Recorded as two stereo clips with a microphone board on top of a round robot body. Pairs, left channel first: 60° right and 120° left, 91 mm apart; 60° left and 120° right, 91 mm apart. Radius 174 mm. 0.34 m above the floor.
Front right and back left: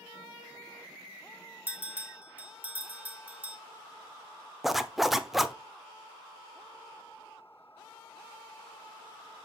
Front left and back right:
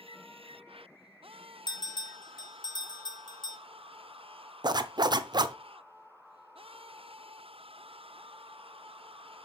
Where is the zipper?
155° right, 0.8 m.